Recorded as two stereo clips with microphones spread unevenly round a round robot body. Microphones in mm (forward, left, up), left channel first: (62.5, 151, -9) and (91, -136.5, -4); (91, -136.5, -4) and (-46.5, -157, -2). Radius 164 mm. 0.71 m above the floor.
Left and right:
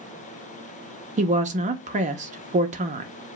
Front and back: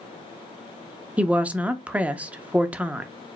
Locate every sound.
1.2 s a woman speaking: 105° right, 0.5 m